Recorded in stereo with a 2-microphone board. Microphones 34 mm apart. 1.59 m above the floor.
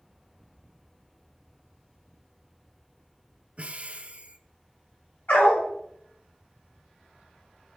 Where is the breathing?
40° right (ahead or behind), 0.5 m.